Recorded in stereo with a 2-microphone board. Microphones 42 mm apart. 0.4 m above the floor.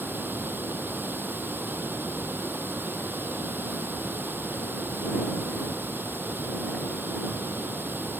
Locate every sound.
0.0 s running water: 55° right (ahead or behind)